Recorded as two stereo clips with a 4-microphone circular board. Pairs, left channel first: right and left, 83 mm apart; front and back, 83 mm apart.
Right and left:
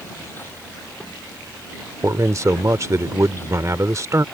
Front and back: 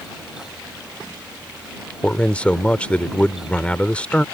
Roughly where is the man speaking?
Left.